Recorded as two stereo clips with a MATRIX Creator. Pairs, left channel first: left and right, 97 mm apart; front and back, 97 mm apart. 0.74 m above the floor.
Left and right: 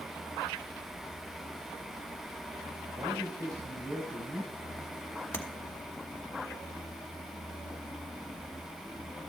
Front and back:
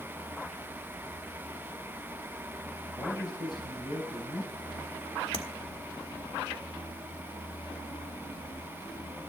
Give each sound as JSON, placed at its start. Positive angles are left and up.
{"t": 3.0, "sound": "a man speaking", "azimuth_deg": -40, "distance_m": 3.5}
{"t": 5.3, "sound": "tapping", "azimuth_deg": 20, "distance_m": 1.5}